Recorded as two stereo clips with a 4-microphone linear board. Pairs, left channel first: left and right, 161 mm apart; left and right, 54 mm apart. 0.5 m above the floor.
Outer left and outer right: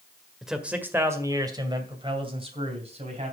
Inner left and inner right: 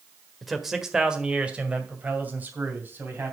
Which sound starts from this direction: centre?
A man speaking, at 0.4 s.